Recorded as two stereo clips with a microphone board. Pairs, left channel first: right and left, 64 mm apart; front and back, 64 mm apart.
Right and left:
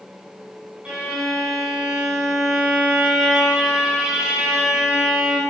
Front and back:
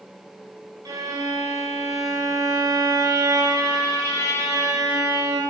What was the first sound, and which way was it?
A violin, 165° left.